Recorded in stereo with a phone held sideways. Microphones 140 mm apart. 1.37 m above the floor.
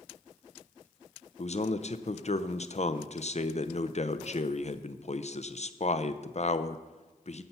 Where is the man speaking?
50° left (ahead or behind), 0.6 m.